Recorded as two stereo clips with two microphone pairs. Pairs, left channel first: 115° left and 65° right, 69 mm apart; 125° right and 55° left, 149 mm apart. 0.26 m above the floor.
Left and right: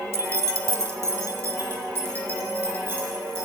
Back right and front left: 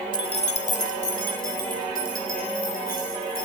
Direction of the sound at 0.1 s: 80° right.